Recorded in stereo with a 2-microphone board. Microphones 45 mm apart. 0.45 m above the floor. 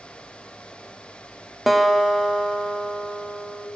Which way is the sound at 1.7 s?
5° right (ahead or behind).